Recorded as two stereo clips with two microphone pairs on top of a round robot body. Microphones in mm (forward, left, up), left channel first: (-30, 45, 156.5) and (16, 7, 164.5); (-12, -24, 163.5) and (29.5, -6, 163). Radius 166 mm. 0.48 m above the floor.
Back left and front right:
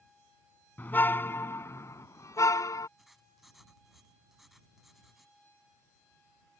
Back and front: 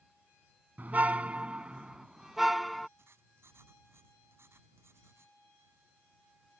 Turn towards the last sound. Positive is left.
turn(degrees=50)